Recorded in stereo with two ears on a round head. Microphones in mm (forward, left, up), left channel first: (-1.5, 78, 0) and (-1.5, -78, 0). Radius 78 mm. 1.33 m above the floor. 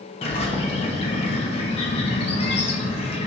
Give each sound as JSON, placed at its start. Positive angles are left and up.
{"t": 0.2, "sound": "a bird", "side_deg": 35, "distance_m": 1.3}